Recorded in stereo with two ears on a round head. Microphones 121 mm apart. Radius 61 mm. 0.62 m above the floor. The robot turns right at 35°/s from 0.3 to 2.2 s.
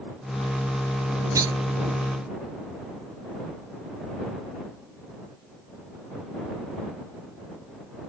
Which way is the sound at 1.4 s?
25° right (ahead or behind).